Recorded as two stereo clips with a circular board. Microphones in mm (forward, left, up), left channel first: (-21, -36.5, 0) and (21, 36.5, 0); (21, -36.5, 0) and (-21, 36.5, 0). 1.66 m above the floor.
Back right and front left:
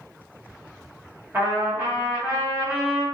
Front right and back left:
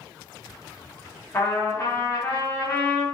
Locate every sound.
1.3 s a trumpet: straight ahead, 1.4 m